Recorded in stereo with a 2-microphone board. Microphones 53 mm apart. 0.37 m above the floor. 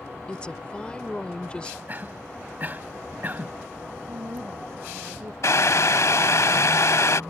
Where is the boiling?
70° left (ahead or behind).